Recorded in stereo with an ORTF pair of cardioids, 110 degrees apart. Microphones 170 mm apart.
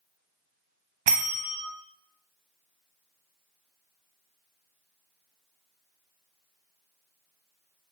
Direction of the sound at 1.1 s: 50° right.